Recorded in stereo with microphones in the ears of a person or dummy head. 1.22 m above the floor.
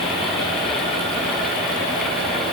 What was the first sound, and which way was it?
Only background noise.